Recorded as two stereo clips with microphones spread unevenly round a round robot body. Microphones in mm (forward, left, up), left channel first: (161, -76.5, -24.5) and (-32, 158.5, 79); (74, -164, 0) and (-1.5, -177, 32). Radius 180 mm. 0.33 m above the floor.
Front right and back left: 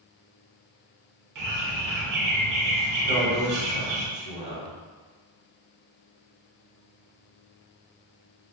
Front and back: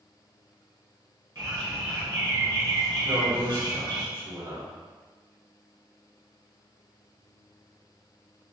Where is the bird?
140° left, 0.9 m.